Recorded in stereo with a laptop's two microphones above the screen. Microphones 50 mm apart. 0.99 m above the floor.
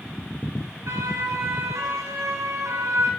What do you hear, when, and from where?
0.9 s a siren: 70° right (ahead or behind), 7 m; by 3.1 s 80° right, 6.5 m